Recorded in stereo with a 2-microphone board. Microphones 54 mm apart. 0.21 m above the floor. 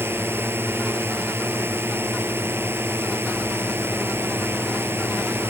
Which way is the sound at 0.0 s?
45° right (ahead or behind).